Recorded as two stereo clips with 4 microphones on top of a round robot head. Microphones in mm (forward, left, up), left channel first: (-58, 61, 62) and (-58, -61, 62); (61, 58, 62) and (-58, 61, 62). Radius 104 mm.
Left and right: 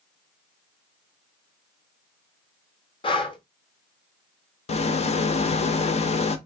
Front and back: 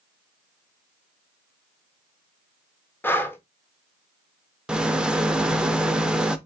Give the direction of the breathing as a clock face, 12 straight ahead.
10 o'clock.